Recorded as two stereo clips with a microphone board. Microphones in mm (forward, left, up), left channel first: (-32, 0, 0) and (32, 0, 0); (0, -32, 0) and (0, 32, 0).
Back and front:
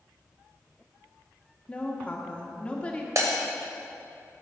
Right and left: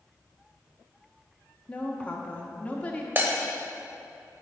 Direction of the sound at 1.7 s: 135° right.